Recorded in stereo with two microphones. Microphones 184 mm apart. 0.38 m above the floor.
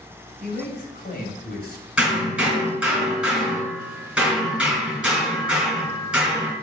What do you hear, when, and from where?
0.4 s a man speaking: 50° left (ahead or behind), 3 m
2.0 s hammering: 5° right (ahead or behind), 5.5 m